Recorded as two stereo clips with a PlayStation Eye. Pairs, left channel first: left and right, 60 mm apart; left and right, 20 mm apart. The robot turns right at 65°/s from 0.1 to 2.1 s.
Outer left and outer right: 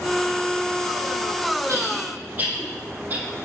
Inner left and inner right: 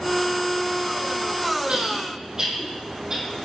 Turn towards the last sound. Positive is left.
turn(degrees=-30)  # may be behind; listen again after turning